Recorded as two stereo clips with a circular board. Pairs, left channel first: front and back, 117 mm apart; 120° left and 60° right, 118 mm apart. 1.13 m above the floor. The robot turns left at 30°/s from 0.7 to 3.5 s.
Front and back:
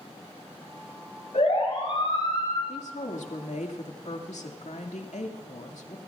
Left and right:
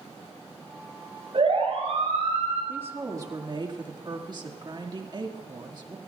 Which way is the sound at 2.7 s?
15° left.